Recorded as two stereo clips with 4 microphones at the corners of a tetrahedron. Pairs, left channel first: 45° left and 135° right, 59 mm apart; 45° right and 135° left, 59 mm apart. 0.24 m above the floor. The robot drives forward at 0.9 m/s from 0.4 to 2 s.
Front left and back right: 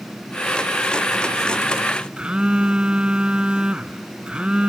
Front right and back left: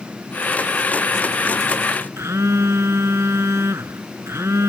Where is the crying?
I don't hear crying.